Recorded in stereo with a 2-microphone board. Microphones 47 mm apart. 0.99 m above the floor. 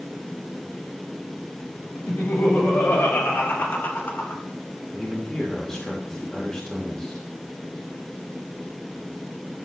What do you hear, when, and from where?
2.0 s laughter: 60° left (ahead or behind), 5.5 m; by 4.4 s 50° left (ahead or behind), 2.5 m
4.9 s a man speaking: 10° left (ahead or behind), 4 m